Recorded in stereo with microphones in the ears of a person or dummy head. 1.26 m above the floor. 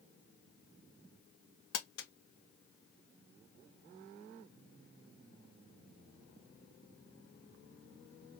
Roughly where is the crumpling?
Left.